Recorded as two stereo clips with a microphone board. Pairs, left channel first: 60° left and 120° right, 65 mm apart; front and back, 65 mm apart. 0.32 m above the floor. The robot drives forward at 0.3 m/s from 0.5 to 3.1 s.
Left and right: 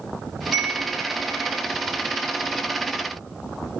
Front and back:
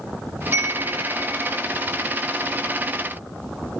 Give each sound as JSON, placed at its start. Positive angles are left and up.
{"t": 0.5, "sound": "a chime", "azimuth_deg": 165, "distance_m": 1.8}